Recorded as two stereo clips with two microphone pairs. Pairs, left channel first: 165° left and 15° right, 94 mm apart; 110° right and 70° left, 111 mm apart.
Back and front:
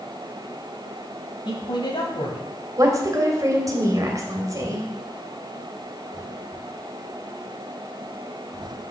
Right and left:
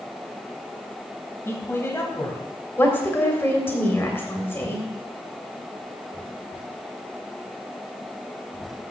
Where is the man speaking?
175° right, 2 m.